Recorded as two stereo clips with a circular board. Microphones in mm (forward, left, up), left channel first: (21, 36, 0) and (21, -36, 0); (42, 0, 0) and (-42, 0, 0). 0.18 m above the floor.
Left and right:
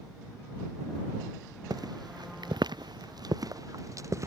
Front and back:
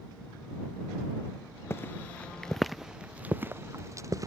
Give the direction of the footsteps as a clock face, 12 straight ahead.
2 o'clock.